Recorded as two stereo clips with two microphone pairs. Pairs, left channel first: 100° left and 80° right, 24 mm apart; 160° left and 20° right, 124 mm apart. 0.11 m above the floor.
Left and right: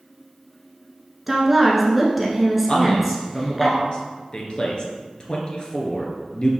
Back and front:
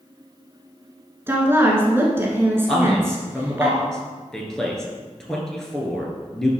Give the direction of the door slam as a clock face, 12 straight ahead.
I don't hear a door slam.